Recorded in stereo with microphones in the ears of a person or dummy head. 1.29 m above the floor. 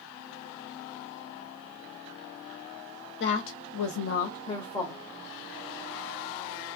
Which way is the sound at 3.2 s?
60° left (ahead or behind).